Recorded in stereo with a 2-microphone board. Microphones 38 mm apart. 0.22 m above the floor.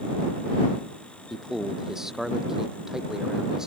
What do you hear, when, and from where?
1.3 s a man speaking: 10° right (ahead or behind); by 3.7 s 15° right (ahead or behind)